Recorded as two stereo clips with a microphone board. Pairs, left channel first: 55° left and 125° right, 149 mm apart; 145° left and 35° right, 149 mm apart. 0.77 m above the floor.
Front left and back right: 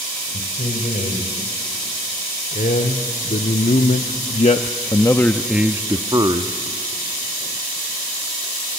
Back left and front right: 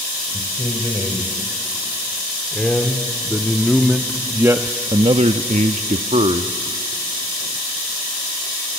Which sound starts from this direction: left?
A man speaking, at 0.3 s.